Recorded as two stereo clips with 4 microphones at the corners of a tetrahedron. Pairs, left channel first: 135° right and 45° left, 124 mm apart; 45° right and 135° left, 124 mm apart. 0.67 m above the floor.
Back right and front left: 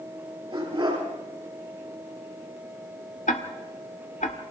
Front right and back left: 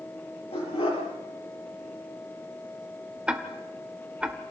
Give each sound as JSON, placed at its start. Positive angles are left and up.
{"t": 0.5, "sound": "a dog barking", "azimuth_deg": -5, "distance_m": 6.0}
{"t": 3.3, "sound": "ticking", "azimuth_deg": -145, "distance_m": 1.5}